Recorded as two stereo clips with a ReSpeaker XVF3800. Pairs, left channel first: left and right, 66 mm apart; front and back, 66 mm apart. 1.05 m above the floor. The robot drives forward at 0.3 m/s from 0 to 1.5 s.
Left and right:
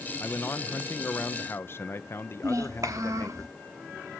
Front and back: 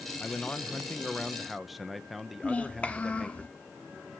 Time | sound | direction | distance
0.2 | a man speaking | 55° left | 0.9 m
2.4 | a child speaking | 70° right | 1.1 m